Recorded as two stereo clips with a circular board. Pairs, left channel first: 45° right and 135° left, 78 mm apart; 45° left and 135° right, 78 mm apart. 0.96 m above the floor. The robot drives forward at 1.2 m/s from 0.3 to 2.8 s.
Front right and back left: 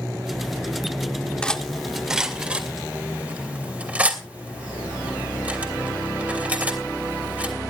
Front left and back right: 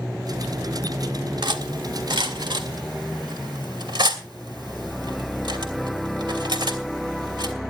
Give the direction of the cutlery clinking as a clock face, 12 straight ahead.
4 o'clock.